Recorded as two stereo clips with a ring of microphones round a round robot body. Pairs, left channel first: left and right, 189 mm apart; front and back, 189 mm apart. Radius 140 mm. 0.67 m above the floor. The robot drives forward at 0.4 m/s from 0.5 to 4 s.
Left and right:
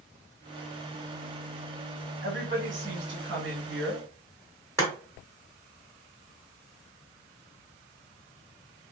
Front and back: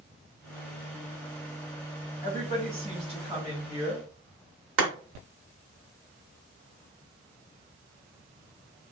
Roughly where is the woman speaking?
Right.